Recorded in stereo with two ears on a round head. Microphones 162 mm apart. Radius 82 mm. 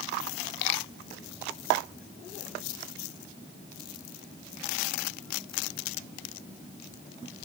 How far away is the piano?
I don't hear a piano.